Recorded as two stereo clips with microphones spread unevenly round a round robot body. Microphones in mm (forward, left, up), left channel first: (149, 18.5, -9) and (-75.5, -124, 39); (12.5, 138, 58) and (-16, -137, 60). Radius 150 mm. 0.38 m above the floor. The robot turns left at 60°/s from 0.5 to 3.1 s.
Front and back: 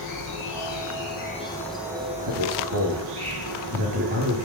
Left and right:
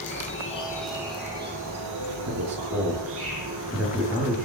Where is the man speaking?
130° right, 8.5 m; by 4.5 s straight behind, 8.5 m.